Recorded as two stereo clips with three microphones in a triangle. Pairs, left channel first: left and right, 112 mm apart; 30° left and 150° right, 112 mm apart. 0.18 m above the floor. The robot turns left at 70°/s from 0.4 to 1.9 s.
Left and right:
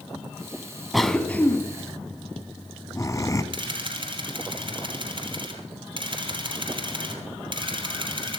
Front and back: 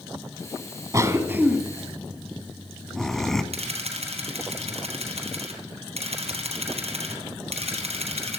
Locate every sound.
0.9 s a cough: straight behind, 1.2 m; by 3.4 s 115° left, 1.2 m
3.5 s a camera shutter: 130° right, 2.5 m